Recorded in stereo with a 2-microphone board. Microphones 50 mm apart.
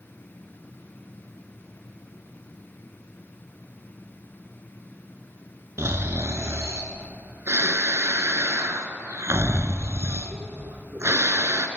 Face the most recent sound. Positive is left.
turn(degrees=-60)  # may be behind; listen again after turning